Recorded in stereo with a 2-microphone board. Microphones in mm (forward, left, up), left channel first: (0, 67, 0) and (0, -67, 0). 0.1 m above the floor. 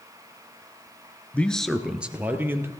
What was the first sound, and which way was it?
A man speaking, 10° left (ahead or behind).